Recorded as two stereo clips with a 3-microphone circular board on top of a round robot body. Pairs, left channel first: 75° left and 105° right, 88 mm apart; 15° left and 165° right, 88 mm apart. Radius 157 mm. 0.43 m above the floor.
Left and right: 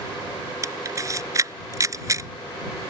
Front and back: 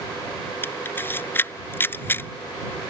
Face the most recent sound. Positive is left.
turn(degrees=-50)